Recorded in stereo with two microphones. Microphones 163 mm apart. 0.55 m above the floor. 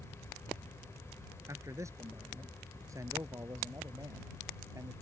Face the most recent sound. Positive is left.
turn(degrees=-20)  # may be behind; listen again after turning